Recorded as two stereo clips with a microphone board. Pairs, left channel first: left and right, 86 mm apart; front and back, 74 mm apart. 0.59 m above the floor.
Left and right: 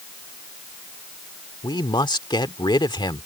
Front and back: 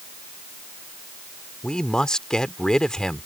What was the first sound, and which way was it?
A man speaking, 80° left.